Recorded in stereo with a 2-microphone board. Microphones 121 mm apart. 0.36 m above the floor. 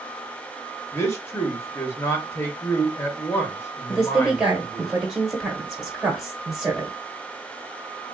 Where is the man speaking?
25° left (ahead or behind), 0.9 m.